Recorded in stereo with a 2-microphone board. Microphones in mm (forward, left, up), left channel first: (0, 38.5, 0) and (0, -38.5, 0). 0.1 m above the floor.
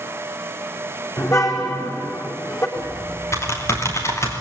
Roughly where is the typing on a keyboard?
Left.